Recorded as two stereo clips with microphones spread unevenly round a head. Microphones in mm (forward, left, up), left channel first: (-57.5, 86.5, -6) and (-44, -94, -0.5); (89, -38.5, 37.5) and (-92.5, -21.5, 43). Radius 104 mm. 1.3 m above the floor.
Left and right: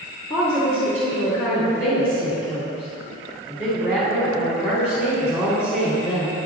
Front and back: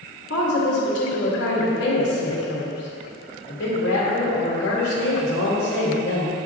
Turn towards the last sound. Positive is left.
turn(degrees=30)